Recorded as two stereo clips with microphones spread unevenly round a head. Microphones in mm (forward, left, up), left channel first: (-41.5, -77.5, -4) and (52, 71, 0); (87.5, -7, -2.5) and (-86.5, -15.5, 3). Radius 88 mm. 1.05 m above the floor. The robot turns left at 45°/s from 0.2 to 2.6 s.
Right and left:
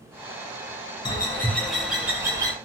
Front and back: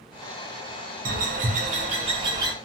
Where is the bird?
Straight behind, 0.8 m; by 2.5 s 115° left, 0.8 m.